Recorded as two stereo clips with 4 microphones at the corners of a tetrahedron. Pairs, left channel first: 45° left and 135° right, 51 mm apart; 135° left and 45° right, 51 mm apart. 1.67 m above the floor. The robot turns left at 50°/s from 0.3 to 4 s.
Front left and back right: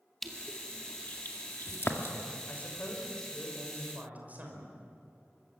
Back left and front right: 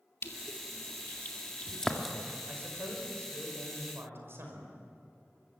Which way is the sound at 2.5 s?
5° right.